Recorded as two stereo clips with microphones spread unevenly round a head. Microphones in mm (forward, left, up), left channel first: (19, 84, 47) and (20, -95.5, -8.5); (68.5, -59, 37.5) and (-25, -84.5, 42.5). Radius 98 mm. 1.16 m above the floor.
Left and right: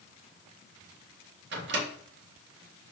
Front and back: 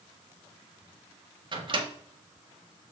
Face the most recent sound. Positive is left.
turn(degrees=-125)